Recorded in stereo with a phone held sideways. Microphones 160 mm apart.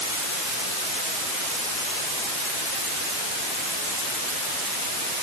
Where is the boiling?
I don't hear boiling.